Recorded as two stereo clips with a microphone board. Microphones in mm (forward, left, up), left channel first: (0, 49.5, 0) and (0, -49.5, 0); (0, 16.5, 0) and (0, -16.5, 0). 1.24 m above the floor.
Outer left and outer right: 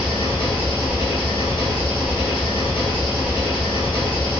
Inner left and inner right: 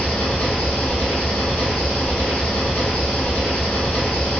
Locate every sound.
0.0 s an engine running: 65° left (ahead or behind), 1.2 m